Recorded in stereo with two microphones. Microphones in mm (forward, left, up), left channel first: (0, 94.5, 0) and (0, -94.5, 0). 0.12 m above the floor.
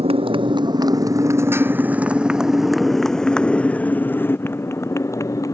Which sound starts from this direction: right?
A motorcycle, at 0.0 s.